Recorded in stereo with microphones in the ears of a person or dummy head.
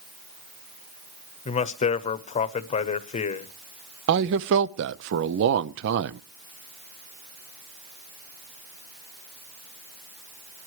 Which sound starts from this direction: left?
A man speaking, at 1.4 s.